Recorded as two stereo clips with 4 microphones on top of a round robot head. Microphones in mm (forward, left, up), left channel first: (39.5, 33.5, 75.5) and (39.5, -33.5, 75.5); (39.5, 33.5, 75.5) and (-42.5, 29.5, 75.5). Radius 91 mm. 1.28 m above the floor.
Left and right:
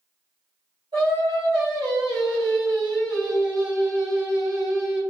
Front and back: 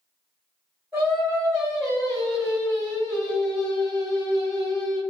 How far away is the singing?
About 1.8 m.